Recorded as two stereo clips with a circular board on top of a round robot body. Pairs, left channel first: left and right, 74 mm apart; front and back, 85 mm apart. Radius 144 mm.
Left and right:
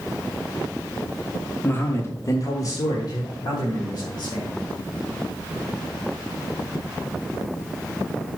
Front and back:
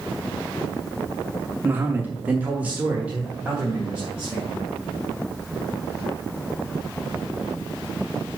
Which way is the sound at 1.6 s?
130° left.